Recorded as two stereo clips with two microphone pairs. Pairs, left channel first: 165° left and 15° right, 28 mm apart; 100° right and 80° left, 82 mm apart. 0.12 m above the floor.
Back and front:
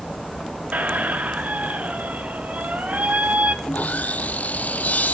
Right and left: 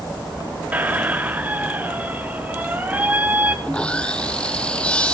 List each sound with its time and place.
0.7 s a squeak: 10° left, 1.0 m
3.6 s sawing: 175° right, 0.6 m